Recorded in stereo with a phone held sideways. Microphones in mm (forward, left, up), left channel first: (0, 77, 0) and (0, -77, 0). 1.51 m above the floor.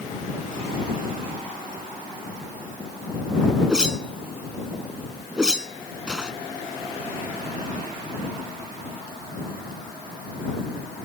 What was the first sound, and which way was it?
A whoosh, 5° right (ahead or behind).